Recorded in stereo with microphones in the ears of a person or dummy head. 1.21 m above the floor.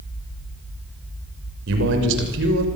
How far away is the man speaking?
About 6 m.